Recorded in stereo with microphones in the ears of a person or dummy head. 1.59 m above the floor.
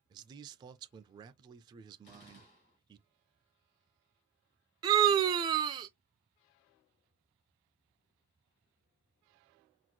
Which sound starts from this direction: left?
A gunshot, at 2.0 s.